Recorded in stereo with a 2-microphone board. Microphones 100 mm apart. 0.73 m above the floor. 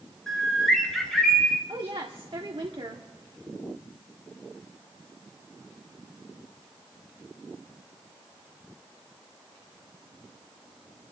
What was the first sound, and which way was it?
A bird, 5° left (ahead or behind).